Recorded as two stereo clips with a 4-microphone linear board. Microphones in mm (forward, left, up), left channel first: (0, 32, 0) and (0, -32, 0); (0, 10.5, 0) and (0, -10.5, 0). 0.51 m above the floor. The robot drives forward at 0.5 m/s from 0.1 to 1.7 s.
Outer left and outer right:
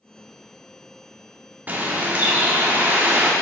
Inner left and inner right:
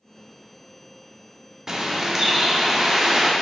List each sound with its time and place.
1.7 s a bird: 25° right (ahead or behind), 0.7 m